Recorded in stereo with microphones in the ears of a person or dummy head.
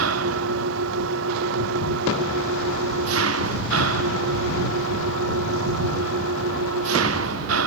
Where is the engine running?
80° right.